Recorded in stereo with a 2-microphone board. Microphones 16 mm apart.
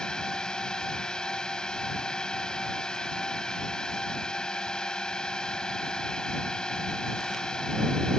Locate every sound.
0.0 s a drone: 50° left (ahead or behind)